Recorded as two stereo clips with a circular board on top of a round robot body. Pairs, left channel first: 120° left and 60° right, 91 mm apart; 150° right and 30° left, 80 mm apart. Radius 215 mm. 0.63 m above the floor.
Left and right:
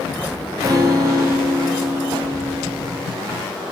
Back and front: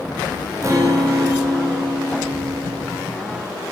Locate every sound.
0.6 s a guitar: 15° right, 1.8 m